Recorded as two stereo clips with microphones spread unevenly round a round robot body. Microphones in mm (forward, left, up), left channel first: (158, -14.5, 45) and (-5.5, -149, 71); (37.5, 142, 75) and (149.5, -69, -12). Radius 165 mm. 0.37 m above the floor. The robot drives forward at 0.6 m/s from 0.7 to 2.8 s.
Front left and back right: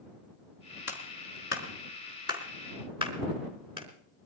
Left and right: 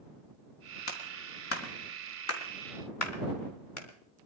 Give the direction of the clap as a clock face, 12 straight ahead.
9 o'clock.